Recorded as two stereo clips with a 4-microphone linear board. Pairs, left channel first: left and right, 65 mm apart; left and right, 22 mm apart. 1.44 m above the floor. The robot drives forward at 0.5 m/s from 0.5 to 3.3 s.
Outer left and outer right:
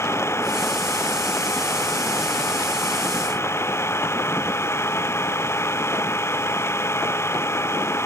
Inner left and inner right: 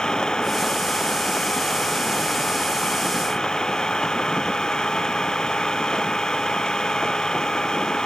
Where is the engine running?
40° left (ahead or behind).